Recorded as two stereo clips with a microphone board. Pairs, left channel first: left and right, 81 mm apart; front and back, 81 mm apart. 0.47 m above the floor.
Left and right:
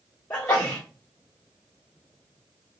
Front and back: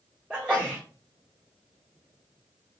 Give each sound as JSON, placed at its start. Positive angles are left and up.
{"t": 0.3, "sound": "a sneeze", "azimuth_deg": 120, "distance_m": 1.0}